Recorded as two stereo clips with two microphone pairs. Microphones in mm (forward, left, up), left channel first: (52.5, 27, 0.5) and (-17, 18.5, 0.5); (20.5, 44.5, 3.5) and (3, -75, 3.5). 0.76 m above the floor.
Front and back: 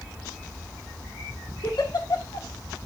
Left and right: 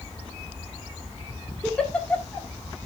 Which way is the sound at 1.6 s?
Straight ahead.